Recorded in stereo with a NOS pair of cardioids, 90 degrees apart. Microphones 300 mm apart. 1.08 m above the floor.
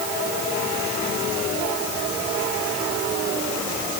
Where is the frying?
I don't hear frying.